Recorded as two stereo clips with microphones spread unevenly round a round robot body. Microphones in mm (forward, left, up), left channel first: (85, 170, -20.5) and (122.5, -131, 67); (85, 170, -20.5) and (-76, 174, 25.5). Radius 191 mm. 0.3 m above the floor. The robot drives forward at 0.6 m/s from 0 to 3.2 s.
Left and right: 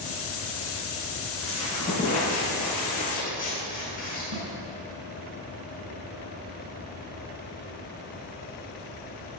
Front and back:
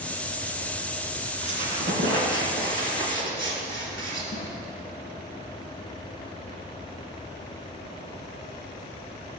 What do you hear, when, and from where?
1.4 s a squeak: straight behind, 2 m
4.3 s a snare drum: 70° right, 4 m